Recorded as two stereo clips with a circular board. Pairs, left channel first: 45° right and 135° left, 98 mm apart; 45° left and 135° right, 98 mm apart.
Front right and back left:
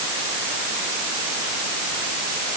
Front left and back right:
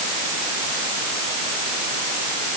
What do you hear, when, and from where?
Only background noise.